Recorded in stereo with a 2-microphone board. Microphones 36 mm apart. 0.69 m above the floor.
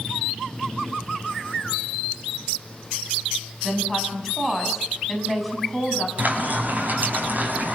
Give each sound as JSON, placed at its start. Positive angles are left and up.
{"t": 3.6, "sound": "a woman speaking", "side_deg": 0, "distance_m": 5.5}
{"t": 6.2, "sound": "frying", "side_deg": -50, "distance_m": 6.0}